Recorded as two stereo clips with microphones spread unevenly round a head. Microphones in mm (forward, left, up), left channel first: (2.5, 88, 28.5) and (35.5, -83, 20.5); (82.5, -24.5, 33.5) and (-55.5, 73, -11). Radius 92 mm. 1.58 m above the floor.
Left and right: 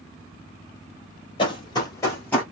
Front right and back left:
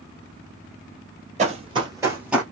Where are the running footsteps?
105° left, 1.7 m; by 2.4 s 30° left, 1.7 m.